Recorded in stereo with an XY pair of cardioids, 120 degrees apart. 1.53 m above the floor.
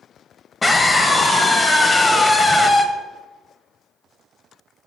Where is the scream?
25° left, 1.0 m.